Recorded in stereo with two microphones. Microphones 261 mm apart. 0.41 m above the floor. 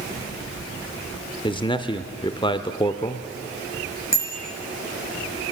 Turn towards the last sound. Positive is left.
turn(degrees=-50)  # may be behind; listen again after turning